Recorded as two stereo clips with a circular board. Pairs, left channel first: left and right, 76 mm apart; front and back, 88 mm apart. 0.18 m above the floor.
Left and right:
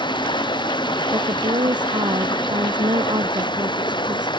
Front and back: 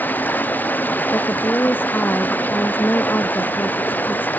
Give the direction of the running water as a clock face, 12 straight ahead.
10 o'clock.